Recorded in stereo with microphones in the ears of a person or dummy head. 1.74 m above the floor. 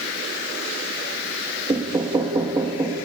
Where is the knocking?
20° right (ahead or behind), 2.5 m.